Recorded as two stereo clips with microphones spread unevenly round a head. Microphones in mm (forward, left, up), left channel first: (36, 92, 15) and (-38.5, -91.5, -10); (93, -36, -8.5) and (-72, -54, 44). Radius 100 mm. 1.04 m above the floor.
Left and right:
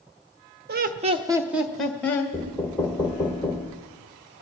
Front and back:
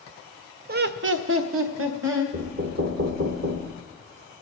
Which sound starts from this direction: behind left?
Knocking, at 2.3 s.